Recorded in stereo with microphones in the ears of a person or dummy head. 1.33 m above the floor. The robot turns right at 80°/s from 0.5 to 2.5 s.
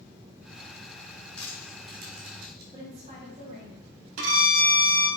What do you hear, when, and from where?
1.4 s crushing: 5° left (ahead or behind), 1.7 m; by 2.6 s 75° right (ahead or behind), 1.7 m
2.7 s a woman speaking: 30° right (ahead or behind), 1.0 m
4.2 s a violin: 70° right (ahead or behind), 0.8 m